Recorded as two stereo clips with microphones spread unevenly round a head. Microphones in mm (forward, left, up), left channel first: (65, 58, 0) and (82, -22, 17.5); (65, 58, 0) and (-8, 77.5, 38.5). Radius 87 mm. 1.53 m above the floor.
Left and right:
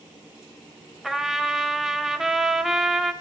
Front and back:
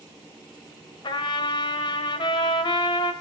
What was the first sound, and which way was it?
A trumpet, 30° right.